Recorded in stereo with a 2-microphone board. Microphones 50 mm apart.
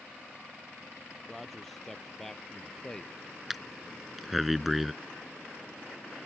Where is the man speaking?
Centre (ahead or behind); by 3.1 s 15° left (ahead or behind).